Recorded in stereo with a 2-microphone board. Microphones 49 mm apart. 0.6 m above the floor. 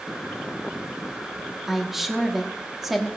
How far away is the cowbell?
No cowbell in this recording.